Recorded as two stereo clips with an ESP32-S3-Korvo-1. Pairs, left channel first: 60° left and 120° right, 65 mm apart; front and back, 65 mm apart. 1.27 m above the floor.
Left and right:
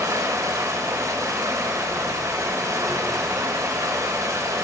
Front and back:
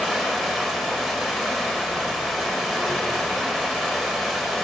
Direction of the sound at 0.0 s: 85° right.